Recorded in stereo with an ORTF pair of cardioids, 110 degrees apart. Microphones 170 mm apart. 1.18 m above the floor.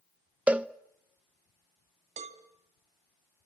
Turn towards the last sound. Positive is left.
turn(degrees=-45)